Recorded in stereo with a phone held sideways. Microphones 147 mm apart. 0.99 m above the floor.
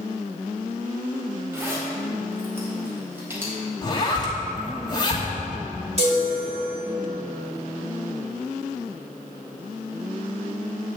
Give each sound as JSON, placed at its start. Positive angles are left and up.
{"t": 1.5, "sound": "a zipper", "side_deg": -15, "distance_m": 4.5}
{"t": 3.8, "sound": "a zipper", "side_deg": 30, "distance_m": 2.5}
{"t": 6.0, "sound": "a chime", "side_deg": -50, "distance_m": 3.5}